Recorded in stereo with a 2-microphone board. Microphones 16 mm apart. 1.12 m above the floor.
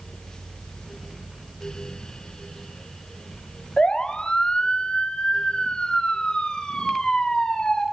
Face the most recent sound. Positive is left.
turn(degrees=60)  # may be behind; listen again after turning